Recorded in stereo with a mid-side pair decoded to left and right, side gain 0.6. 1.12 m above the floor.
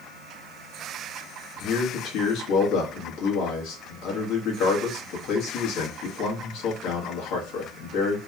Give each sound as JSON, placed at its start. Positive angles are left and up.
{"t": 1.6, "sound": "a man speaking", "azimuth_deg": 70, "distance_m": 1.3}